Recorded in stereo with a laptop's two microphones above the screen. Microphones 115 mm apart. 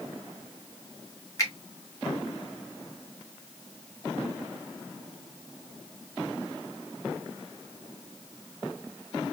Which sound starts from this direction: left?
A finger snap, at 1.4 s.